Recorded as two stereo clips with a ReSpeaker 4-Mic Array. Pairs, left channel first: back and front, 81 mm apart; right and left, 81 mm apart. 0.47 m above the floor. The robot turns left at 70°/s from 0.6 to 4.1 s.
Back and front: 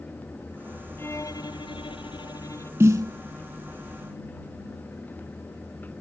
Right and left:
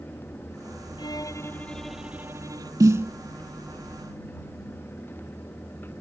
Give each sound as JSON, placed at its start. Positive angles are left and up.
{"t": 1.0, "sound": "a violin", "azimuth_deg": -115}
{"t": 2.8, "sound": "a snare drum", "azimuth_deg": 55}